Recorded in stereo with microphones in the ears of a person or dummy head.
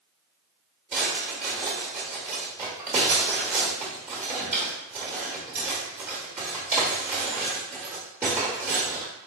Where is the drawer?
10° right (ahead or behind), 1.2 m.